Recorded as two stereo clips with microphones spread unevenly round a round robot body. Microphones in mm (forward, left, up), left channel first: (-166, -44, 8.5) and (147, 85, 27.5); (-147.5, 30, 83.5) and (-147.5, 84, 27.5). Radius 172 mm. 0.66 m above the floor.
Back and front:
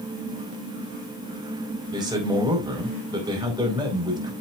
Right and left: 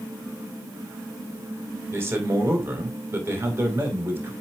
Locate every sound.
1.9 s a man speaking: 100° left, 4.5 m